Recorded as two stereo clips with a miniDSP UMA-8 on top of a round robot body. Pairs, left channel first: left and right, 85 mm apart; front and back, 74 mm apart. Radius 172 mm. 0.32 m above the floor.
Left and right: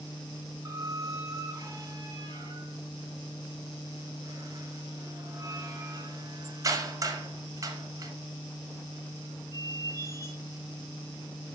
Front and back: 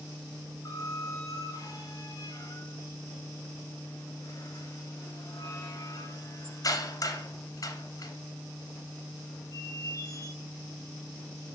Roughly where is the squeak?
Ahead right.